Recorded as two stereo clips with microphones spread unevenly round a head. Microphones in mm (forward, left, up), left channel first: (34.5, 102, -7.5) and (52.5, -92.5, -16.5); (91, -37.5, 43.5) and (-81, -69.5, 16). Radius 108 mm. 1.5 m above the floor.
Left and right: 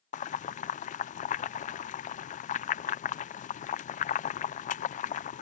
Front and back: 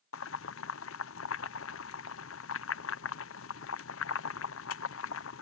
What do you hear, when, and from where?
0.1 s boiling: 40° left